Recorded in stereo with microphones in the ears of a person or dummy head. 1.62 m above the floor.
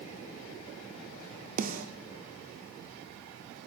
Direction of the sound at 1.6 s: 45° right (ahead or behind).